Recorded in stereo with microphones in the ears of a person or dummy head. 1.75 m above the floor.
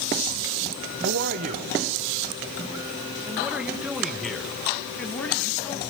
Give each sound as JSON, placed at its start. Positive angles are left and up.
{"t": 1.0, "sound": "a man speaking", "side_deg": -55, "distance_m": 1.0}